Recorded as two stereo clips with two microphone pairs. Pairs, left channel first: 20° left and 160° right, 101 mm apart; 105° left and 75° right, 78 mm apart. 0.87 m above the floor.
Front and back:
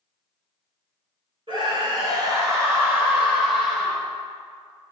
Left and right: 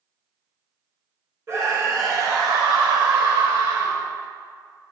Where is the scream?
130° right, 3.5 m; by 4.1 s 70° right, 3.5 m.